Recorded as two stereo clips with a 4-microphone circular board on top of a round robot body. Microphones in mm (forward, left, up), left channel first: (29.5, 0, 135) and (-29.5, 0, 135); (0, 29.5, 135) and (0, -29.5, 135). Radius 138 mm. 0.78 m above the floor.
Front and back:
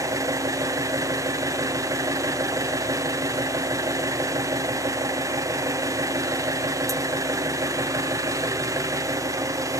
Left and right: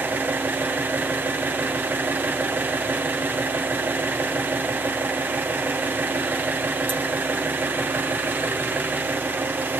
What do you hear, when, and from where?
0.0 s an engine running: 150° right, 2.5 m